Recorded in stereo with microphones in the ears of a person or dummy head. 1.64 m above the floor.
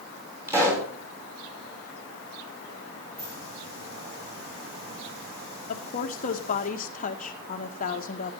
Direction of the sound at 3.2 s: 30° right (ahead or behind).